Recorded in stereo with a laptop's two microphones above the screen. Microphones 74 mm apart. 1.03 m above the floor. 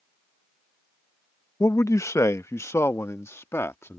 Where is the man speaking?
45° left (ahead or behind); by 4.0 s 35° left (ahead or behind).